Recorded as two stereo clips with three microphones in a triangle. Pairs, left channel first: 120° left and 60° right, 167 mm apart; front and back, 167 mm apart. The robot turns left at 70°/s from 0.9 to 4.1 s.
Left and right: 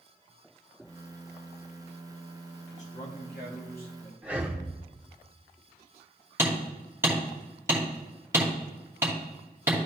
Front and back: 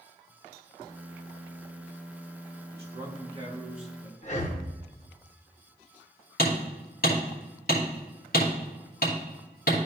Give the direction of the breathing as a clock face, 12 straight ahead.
11 o'clock.